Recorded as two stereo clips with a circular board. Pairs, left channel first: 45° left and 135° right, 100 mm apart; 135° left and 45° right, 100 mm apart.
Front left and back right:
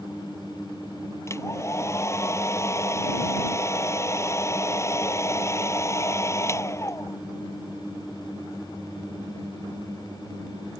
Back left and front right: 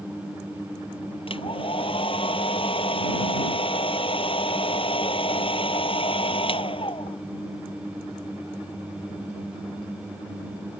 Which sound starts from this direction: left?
A hair dryer, at 1.3 s.